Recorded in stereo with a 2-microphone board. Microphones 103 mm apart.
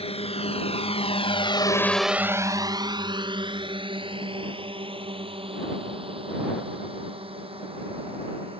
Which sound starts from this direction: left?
A drone, at 0.0 s.